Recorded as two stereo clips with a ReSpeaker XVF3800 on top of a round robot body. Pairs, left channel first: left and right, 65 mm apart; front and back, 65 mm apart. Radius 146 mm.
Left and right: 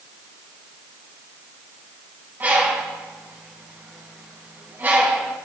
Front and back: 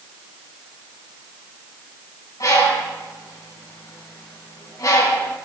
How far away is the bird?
About 4 m.